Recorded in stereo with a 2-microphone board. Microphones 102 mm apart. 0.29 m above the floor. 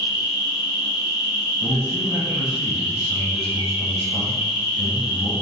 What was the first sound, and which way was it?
An insect, 55° left (ahead or behind).